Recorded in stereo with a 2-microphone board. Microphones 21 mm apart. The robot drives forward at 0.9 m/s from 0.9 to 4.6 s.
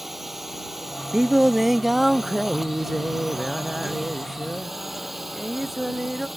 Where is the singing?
30° right (ahead or behind); by 6.3 s 5° right (ahead or behind).